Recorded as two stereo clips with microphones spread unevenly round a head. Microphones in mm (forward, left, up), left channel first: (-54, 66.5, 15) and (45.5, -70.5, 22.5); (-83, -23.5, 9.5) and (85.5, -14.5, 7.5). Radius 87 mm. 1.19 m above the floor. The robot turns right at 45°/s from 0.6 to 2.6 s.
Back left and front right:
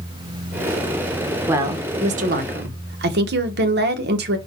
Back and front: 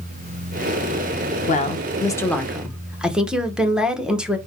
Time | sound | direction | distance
1.5 | a woman speaking | 135° right | 0.8 m